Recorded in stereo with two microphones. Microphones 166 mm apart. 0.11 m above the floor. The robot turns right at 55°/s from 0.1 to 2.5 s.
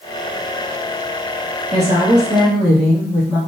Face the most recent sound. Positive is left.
turn(degrees=10)